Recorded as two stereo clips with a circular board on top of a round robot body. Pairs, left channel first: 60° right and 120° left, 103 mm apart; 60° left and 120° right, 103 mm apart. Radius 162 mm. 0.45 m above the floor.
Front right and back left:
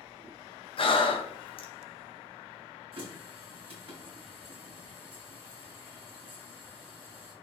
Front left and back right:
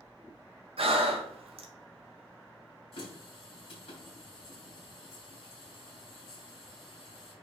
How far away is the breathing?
About 1.4 m.